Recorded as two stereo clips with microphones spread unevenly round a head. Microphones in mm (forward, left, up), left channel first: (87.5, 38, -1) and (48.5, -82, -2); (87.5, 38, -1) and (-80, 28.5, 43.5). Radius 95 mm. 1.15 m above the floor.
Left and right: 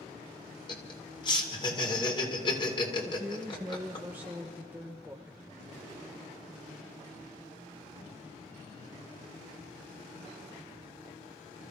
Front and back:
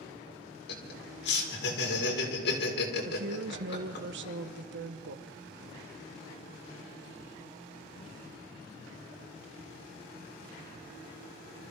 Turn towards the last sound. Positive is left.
turn(degrees=175)